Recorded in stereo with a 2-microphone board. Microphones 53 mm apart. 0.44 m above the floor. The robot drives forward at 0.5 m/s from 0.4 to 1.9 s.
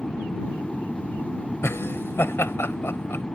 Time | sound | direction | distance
0.0 | an aircraft | 20° left (ahead or behind) | ?
1.6 | laughter | 55° left (ahead or behind) | ?